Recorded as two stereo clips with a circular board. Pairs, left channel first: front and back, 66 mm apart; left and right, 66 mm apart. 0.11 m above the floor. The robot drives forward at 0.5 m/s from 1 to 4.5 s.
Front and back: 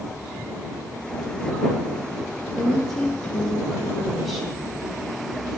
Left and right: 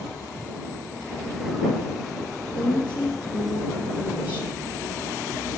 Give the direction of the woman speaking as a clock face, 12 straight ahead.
10 o'clock.